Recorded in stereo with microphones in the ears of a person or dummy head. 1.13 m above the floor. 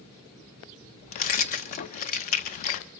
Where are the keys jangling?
40° left (ahead or behind), 0.5 m.